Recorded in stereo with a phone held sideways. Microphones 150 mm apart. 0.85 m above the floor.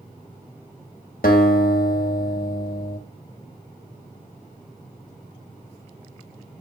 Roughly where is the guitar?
Left.